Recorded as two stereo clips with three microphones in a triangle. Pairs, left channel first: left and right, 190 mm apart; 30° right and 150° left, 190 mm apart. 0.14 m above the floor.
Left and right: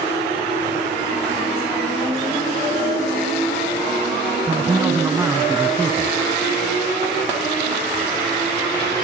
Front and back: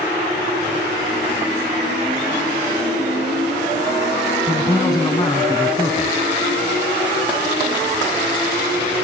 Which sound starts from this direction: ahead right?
A man speaking, at 4.5 s.